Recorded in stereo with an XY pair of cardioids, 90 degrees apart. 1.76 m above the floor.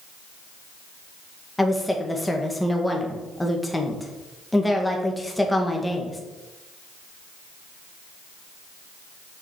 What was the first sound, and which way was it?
A woman speaking, 10° left.